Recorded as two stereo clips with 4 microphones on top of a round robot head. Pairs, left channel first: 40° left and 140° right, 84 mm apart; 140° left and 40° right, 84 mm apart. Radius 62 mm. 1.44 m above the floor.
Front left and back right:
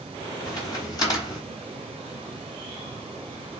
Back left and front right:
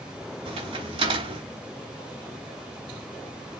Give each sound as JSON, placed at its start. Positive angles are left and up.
{"t": 0.5, "sound": "a crack", "azimuth_deg": -10, "distance_m": 8.5}